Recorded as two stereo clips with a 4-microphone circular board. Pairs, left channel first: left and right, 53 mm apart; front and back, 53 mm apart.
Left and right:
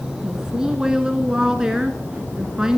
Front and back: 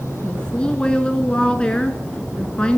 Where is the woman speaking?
35° right, 1.2 m.